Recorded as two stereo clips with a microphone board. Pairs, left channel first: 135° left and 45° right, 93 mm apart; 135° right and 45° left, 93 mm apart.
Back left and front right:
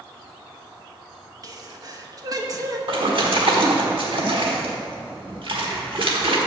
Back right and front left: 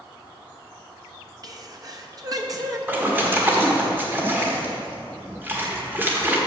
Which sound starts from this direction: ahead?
A sneeze, at 1.4 s.